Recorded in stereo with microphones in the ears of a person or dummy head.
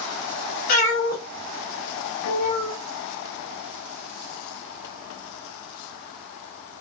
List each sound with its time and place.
0.7 s a cat meowing: 50° left (ahead or behind), 1.3 m; by 2.8 s 35° left (ahead or behind), 0.8 m